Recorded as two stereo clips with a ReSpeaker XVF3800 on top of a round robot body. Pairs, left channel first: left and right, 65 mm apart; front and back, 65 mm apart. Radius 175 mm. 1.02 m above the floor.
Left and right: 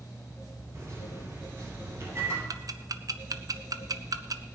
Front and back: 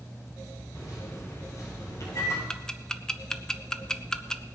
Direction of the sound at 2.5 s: 80° right.